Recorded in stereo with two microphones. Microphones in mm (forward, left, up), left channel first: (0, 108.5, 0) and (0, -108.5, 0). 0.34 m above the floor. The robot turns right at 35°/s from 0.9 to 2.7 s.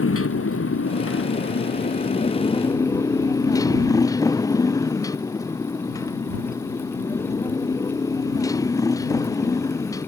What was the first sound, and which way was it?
A motorcycle, 80° left.